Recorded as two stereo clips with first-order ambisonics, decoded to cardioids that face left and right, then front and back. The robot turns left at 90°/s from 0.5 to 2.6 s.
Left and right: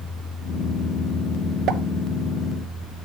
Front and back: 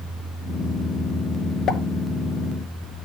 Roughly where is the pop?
Ahead right.